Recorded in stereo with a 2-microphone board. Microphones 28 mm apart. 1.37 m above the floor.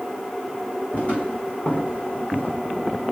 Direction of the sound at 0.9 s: 50° left (ahead or behind).